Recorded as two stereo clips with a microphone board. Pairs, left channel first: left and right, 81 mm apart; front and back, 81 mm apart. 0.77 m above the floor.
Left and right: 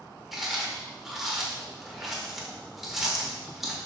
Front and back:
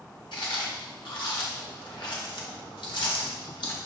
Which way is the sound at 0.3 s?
5° right.